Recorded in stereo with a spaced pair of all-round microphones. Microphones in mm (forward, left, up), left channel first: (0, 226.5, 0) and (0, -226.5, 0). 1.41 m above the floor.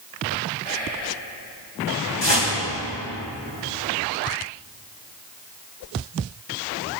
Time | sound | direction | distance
0.6 | whispering | 15° left (ahead or behind) | 3.5 m
2.2 | a whoosh | 65° left (ahead or behind) | 1.7 m